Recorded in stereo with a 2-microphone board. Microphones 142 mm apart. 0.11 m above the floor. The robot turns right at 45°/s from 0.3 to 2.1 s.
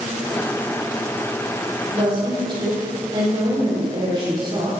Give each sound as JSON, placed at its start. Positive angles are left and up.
{"t": 1.9, "sound": "a woman speaking", "side_deg": -40, "distance_m": 3.5}